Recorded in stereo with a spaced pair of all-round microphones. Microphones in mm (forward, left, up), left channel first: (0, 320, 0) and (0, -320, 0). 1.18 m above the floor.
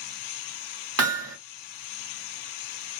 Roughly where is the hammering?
Right.